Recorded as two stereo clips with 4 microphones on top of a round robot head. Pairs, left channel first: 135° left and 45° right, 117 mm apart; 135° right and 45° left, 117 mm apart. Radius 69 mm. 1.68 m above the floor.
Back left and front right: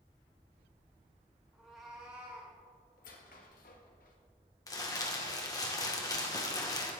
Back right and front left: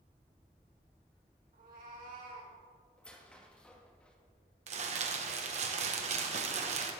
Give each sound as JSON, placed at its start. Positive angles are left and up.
{"t": 1.5, "sound": "a cat meowing", "azimuth_deg": 45, "distance_m": 4.0}
{"t": 3.0, "sound": "a squeak", "azimuth_deg": 140, "distance_m": 1.8}
{"t": 4.7, "sound": "crumpling", "azimuth_deg": 75, "distance_m": 1.7}